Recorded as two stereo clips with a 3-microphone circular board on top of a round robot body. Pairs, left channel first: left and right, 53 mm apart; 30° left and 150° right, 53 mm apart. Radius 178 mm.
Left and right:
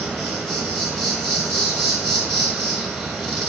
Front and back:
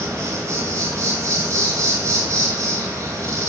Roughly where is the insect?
Behind.